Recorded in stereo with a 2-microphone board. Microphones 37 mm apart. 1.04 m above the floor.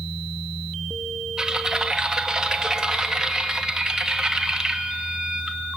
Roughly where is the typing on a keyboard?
Centre.